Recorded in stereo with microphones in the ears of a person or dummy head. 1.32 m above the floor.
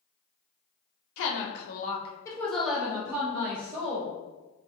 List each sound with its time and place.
1.2 s a woman speaking: 75° left (ahead or behind), 0.7 m; by 4.2 s 30° right (ahead or behind), 1.4 m